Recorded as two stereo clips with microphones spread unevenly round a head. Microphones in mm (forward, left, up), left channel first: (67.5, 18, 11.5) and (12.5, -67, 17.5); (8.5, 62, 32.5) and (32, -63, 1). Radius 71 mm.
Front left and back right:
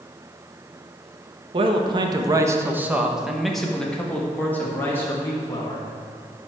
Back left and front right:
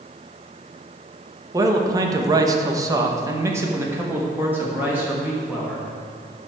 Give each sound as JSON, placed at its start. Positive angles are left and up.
{"t": 1.5, "sound": "a man speaking", "azimuth_deg": -120, "distance_m": 1.3}